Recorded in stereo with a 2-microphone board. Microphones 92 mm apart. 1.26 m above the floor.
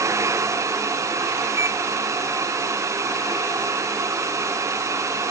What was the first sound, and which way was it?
A microwave, 35° right (ahead or behind).